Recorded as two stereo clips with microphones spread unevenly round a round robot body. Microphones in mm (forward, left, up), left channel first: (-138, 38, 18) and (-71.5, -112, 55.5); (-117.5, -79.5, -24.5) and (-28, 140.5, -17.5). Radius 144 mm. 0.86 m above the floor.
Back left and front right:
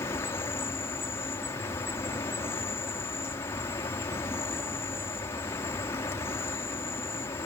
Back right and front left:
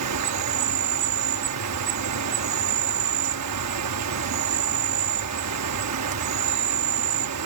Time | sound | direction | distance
0.0 | an insect | 40° left | ?